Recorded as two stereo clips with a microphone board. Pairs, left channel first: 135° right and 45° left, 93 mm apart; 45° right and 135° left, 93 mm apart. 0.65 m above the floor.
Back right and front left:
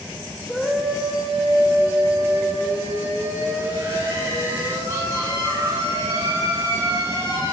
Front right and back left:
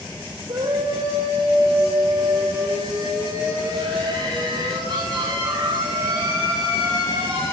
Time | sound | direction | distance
0.5 | a scream | 135° left | 2.5 m